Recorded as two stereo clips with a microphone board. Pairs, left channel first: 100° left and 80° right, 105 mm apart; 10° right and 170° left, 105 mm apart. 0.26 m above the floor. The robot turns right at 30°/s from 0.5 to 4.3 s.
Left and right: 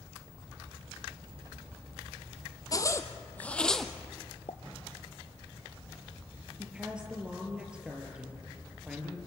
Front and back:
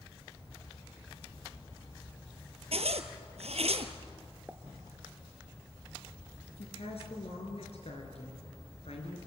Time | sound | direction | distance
2.7 | a zipper | 155° left | 1.3 m
4.5 | a pop | 95° left | 0.9 m
6.6 | a woman speaking | straight ahead | 4.5 m